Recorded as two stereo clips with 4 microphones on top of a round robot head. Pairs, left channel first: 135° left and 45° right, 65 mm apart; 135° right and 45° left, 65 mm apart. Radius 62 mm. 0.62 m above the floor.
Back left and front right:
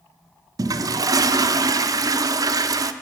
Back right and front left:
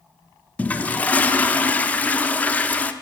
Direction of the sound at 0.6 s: 65° right.